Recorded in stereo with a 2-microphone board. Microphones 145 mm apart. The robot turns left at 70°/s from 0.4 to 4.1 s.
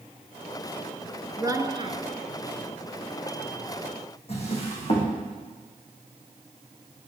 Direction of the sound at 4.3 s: 45° left (ahead or behind).